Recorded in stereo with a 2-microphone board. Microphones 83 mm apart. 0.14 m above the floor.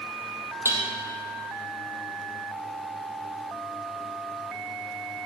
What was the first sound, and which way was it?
Dishes clattering, 30° right (ahead or behind).